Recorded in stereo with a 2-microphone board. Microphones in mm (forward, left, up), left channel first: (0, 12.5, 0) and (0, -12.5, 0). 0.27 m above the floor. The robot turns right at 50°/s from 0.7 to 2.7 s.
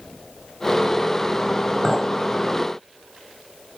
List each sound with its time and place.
1.8 s a clink: centre (ahead or behind), 0.7 m; by 2.1 s 10° left (ahead or behind), 0.7 m